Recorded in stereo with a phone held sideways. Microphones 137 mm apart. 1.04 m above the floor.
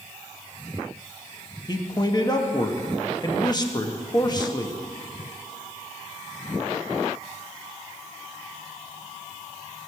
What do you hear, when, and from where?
1.7 s a man speaking: 30° left (ahead or behind), 1.2 m